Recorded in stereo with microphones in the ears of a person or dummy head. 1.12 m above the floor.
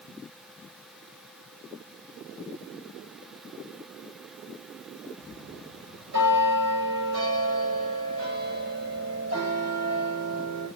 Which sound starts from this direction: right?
A bell, at 5.2 s.